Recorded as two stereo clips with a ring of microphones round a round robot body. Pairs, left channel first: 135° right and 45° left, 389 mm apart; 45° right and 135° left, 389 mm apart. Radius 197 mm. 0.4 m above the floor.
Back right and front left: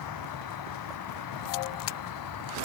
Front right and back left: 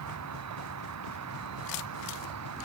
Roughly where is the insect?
Behind.